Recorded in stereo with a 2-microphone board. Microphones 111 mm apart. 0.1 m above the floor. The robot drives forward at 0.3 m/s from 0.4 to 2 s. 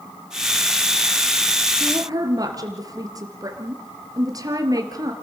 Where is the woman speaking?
35° right (ahead or behind), 2.5 m; by 5.1 s 30° right (ahead or behind), 2.5 m.